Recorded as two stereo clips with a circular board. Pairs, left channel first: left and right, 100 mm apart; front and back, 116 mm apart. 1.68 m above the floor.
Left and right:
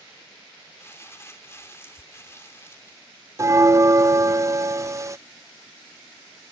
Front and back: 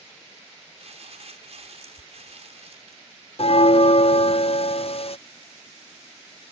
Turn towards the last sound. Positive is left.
turn(degrees=-30)